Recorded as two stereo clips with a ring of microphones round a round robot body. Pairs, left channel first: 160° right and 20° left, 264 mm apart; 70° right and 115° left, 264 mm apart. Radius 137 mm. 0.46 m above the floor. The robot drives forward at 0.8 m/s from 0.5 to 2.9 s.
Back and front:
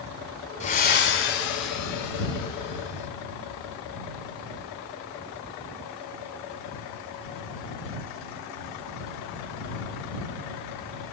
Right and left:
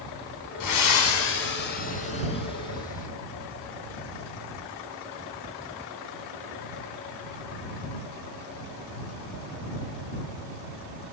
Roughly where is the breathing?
Right.